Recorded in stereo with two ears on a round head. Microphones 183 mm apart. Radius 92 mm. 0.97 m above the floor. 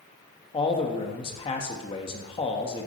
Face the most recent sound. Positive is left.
turn(degrees=25)  # may be behind; listen again after turning